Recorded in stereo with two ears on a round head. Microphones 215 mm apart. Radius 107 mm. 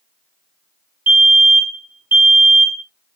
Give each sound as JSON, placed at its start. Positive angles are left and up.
{"t": 1.1, "sound": "a fire alarm", "side_deg": -10, "distance_m": 1.0}